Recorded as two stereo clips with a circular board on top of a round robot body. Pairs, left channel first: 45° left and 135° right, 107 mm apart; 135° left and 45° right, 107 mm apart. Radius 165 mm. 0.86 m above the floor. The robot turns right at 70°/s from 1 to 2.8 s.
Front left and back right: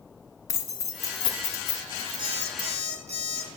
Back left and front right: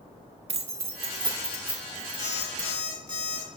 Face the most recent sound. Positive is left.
turn(degrees=-145)